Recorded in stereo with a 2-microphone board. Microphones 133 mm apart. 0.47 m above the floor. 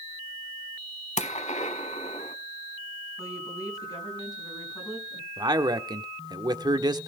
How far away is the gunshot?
About 1.0 m.